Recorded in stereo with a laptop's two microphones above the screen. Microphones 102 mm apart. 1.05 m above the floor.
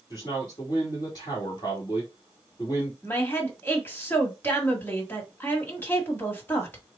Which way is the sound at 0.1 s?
40° left (ahead or behind).